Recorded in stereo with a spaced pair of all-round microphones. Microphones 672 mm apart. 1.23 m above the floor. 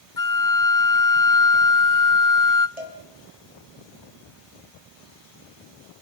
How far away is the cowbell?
About 4 m.